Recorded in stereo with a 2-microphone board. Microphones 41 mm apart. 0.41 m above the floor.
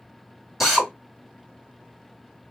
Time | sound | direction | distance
0.6 | a drill | 5° right (ahead or behind) | 1.2 m